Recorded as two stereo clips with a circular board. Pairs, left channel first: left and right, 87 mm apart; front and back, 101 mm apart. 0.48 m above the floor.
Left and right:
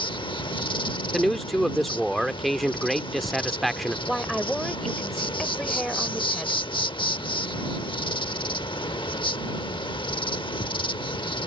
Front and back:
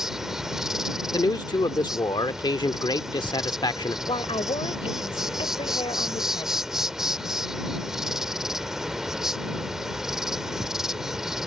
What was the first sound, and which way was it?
An insect, 95° left.